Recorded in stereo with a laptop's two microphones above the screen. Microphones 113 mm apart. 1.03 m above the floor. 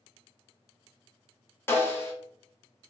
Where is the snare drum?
20° left (ahead or behind), 0.7 m.